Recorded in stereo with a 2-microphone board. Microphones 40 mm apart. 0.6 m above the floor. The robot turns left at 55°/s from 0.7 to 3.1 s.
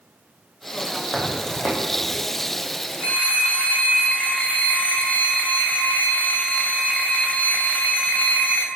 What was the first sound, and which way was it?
Footsteps, 10° left (ahead or behind).